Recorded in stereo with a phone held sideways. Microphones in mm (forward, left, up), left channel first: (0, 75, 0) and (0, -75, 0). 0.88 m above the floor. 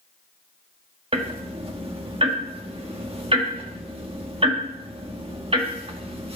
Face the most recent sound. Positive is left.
turn(degrees=-40)  # may be behind; listen again after turning